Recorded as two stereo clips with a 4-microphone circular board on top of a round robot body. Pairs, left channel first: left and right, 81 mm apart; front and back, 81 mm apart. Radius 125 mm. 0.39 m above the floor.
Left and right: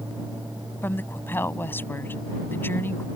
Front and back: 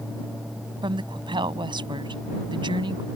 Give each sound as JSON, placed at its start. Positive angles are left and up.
{"t": 0.8, "sound": "a woman speaking", "azimuth_deg": 155}